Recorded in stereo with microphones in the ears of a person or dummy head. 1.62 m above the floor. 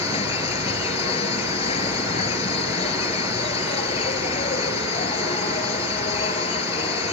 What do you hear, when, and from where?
0.0 s an insect: 30° left (ahead or behind)